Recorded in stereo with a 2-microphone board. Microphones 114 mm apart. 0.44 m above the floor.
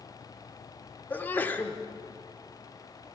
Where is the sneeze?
15° left (ahead or behind), 0.9 m.